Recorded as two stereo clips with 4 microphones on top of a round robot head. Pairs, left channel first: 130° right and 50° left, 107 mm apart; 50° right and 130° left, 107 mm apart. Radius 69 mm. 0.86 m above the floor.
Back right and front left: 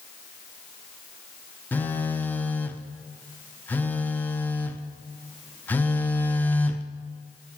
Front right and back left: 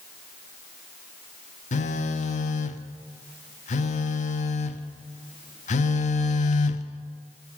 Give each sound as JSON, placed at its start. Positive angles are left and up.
{"t": 1.7, "sound": "a phone buzzing", "azimuth_deg": -55, "distance_m": 0.7}